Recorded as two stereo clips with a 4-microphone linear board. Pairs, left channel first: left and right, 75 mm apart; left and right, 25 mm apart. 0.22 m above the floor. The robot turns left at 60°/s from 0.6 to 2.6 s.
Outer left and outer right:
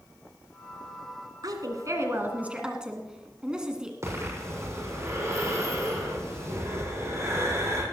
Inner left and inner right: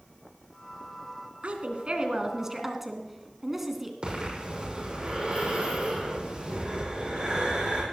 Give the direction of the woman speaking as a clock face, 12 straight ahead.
3 o'clock.